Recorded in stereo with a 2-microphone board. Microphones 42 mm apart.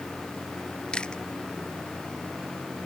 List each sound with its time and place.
0.9 s chewing: 20° left (ahead or behind)